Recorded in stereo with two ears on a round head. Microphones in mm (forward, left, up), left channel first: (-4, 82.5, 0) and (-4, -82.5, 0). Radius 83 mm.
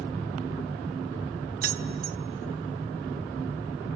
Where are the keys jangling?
55° right (ahead or behind), 0.8 m.